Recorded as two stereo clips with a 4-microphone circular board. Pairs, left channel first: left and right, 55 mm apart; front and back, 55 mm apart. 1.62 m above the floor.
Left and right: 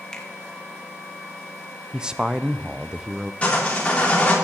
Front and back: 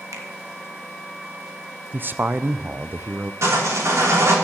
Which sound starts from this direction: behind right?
A man speaking, at 1.9 s.